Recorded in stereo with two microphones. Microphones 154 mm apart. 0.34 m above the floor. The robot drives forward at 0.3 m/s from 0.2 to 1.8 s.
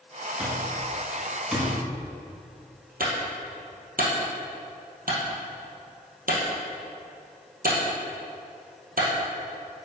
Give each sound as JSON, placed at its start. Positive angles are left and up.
{"t": 0.4, "sound": "an alarm clock", "side_deg": -10, "distance_m": 1.5}
{"t": 3.0, "sound": "a clunk", "side_deg": -70, "distance_m": 1.8}